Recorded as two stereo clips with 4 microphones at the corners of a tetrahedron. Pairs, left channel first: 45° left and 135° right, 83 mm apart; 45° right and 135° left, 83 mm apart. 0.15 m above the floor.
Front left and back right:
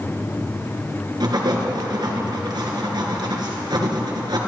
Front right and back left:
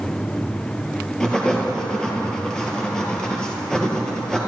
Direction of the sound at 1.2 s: 125° right.